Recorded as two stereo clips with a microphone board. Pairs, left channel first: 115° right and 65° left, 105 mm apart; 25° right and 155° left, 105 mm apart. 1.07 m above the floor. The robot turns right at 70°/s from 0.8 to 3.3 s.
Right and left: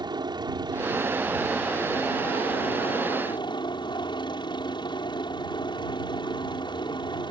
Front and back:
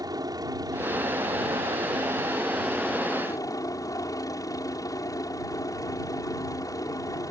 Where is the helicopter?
110° left; by 7.3 s 75° right.